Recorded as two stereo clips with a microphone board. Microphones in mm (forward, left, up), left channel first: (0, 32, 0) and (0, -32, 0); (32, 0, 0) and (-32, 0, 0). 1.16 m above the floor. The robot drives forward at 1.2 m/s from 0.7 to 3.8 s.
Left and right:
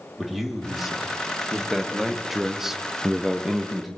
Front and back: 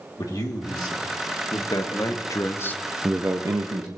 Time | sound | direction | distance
0.2 | a man speaking | straight ahead | 2.5 m